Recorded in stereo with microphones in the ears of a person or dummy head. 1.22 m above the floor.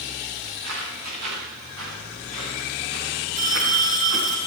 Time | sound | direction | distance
0.5 | footsteps | 75° right (ahead or behind) | 7.5 m
3.4 | a phone ringing | 40° right (ahead or behind) | 5.5 m